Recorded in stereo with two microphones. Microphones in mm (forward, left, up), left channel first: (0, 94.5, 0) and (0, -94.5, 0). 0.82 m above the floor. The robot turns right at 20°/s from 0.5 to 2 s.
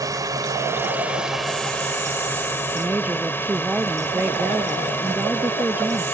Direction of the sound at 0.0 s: 20° right.